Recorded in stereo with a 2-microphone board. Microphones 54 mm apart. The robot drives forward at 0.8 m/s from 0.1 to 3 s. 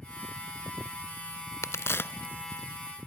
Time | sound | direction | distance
1.6 | a crack | 70° left (ahead or behind) | 0.6 m